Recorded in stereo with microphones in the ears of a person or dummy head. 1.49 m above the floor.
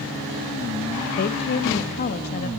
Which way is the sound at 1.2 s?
40° left (ahead or behind).